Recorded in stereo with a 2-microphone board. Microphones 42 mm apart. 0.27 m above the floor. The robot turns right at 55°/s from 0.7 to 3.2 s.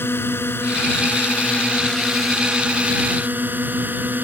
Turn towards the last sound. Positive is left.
turn(degrees=-125)